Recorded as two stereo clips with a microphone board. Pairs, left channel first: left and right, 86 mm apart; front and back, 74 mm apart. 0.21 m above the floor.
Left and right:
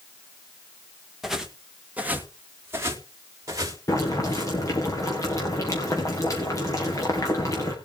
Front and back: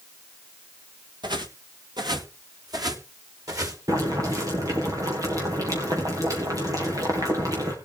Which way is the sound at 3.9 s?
140° left.